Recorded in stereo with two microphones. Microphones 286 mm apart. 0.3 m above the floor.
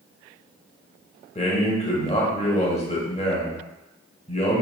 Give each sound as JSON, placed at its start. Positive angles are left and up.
{"t": 1.4, "sound": "a man speaking", "side_deg": 25, "distance_m": 0.9}